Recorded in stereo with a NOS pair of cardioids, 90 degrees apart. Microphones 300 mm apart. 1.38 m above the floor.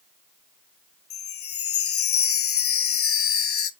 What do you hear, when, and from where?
1.1 s a chime: 45° left, 0.6 m